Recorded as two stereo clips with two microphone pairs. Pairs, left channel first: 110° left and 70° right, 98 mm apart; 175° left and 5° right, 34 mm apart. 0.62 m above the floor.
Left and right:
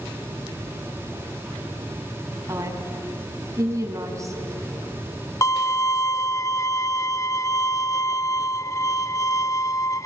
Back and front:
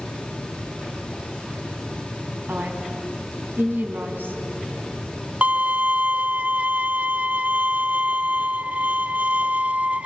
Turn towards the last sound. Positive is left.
turn(degrees=50)